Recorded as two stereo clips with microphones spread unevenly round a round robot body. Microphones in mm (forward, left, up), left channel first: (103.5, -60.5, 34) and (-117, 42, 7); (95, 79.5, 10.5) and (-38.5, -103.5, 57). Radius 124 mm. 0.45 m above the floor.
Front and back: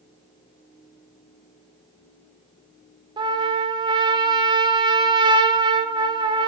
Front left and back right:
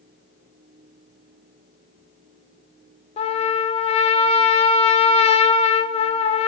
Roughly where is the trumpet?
Left.